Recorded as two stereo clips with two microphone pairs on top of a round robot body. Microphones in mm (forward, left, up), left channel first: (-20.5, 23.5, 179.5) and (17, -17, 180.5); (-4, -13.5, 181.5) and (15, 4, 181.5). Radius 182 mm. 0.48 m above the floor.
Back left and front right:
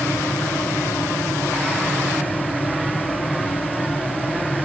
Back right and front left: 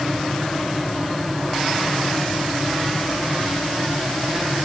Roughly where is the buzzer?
No buzzer in this recording.